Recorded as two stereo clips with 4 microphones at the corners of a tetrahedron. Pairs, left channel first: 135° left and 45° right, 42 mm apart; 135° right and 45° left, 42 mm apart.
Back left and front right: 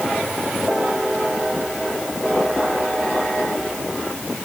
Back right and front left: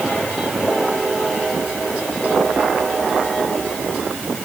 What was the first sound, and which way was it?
Only background noise.